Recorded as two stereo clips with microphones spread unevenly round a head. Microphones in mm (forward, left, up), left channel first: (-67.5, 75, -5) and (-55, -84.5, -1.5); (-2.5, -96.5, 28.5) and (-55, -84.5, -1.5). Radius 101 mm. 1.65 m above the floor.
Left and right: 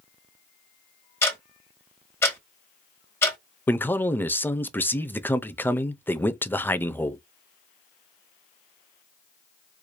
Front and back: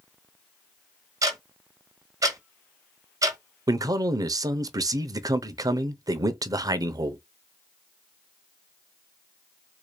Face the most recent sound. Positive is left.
turn(degrees=175)